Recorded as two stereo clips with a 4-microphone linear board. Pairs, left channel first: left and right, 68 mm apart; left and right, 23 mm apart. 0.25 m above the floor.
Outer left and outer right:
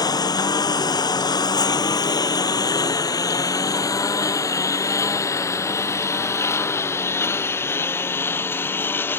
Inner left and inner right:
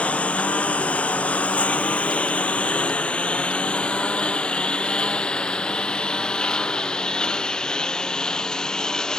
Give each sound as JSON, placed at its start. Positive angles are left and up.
{"t": 0.0, "sound": "a lawn mower", "side_deg": 75}